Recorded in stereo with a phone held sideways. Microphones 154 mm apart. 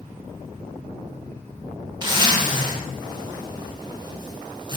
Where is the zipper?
30° right (ahead or behind), 1.3 m.